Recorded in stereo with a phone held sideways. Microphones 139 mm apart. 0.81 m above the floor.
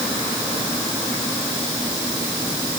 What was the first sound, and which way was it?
Only background noise.